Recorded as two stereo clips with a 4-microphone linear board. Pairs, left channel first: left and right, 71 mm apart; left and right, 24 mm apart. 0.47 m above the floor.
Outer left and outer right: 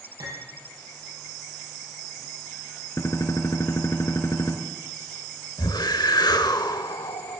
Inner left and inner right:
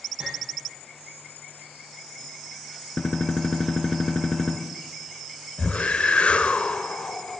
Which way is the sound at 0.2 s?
55° right (ahead or behind).